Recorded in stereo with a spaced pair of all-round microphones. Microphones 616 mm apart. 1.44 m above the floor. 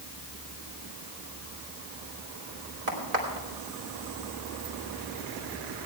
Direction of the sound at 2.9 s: 80° right.